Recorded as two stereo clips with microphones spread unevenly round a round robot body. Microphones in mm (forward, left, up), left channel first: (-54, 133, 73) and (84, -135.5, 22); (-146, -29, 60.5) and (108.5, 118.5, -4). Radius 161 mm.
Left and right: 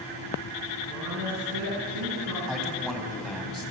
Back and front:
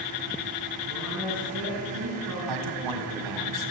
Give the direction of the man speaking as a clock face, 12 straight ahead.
11 o'clock.